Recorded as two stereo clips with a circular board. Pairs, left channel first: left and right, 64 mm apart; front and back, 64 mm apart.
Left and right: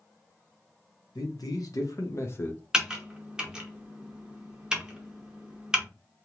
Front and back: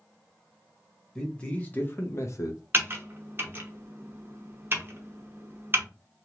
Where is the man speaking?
80° left, 1.3 m; by 2.6 s 25° left, 0.9 m.